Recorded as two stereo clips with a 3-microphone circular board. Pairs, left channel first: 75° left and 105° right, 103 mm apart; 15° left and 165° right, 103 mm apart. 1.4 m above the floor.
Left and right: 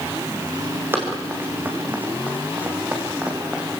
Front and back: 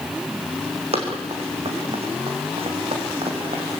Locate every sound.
0.9 s running footsteps: 175° right, 5.5 m; by 3.8 s 175° left, 4 m